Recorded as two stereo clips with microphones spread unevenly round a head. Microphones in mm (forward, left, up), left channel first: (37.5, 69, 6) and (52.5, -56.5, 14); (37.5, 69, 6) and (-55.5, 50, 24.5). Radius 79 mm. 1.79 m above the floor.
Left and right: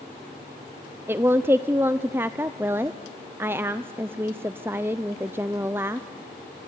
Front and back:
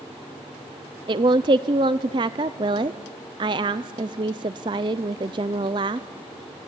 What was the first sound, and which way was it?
A woman speaking, 155° right.